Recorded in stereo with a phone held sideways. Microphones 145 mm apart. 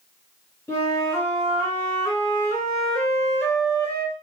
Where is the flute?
15° left (ahead or behind), 2.0 m.